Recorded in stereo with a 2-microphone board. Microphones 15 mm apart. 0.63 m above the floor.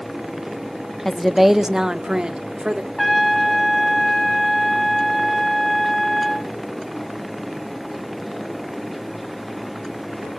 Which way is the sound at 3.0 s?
5° left (ahead or behind).